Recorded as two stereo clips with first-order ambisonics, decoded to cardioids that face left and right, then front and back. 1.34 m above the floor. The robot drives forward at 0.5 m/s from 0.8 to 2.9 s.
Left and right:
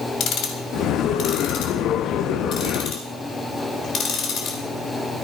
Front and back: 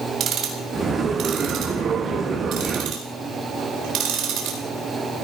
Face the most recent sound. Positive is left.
turn(degrees=145)